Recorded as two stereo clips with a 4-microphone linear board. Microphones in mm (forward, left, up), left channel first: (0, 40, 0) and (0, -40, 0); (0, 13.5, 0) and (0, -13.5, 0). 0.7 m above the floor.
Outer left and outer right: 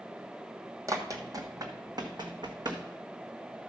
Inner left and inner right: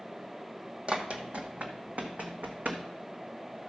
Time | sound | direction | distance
0.9 | running footsteps | 45° right (ahead or behind) | 1.4 m